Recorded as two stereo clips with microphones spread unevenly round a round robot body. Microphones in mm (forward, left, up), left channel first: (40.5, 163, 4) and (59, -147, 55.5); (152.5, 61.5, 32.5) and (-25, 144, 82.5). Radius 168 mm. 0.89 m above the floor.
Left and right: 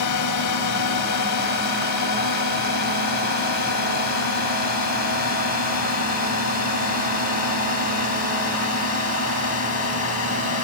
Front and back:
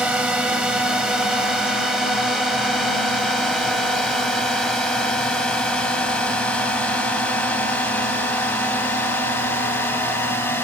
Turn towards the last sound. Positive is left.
turn(degrees=55)